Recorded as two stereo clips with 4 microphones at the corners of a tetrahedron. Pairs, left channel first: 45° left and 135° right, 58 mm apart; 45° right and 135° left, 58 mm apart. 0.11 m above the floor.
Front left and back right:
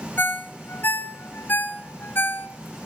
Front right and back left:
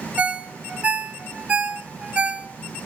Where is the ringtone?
75° left, 0.9 m.